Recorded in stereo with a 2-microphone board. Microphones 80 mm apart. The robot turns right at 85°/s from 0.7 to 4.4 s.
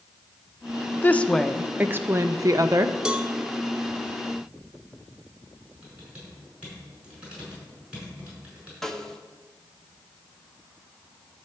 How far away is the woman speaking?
About 0.5 m.